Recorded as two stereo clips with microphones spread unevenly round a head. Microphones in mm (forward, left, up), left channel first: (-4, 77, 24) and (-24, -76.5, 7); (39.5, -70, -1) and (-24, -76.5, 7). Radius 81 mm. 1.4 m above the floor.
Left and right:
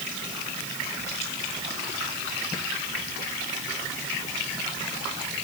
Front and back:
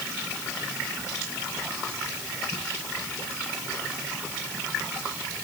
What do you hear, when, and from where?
Only background noise.